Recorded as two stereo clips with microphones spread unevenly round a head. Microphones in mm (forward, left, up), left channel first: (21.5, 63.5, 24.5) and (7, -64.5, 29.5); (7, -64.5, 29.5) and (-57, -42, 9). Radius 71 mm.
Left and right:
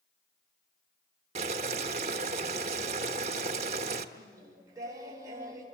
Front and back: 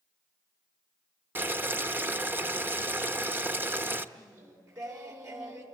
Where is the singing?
165° right, 5.5 m.